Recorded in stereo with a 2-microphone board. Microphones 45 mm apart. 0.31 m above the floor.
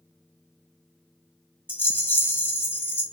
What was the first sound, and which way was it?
A rattle, 40° left (ahead or behind).